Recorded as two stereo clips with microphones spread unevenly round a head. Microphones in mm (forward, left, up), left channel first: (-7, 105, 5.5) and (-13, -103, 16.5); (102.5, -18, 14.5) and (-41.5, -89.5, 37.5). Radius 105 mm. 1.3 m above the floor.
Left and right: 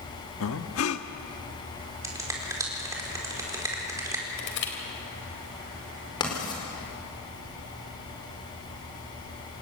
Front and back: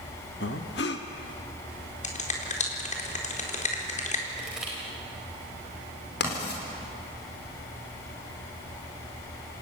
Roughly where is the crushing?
Behind left.